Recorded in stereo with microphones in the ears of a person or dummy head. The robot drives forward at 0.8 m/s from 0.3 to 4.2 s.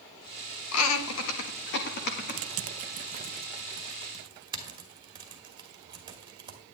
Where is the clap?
No clap in this recording.